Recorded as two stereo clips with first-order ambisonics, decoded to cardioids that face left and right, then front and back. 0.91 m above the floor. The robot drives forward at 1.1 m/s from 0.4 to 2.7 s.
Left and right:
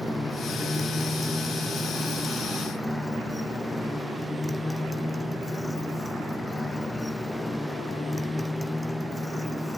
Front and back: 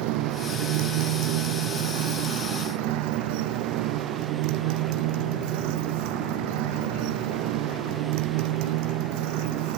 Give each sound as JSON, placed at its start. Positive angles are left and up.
{"t": 0.0, "sound": "a motorcycle", "azimuth_deg": 175}